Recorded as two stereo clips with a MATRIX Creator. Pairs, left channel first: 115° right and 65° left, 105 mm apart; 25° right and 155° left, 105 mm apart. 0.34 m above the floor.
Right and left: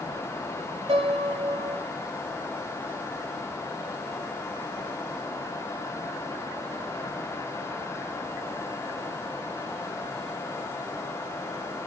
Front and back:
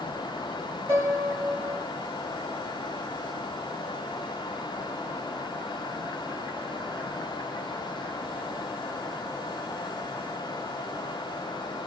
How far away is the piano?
About 3 m.